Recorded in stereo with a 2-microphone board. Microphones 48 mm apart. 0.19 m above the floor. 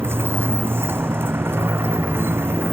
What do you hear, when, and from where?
0.0 s a motorcycle: 55° right (ahead or behind)